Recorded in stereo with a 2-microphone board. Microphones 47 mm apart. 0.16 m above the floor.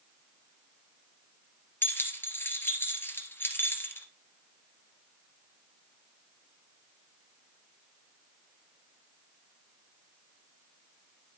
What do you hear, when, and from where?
1.8 s keys jangling: 55° left (ahead or behind), 2 m